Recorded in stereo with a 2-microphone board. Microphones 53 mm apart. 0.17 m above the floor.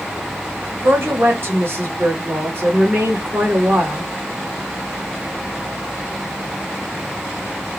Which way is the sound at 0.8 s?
45° right (ahead or behind).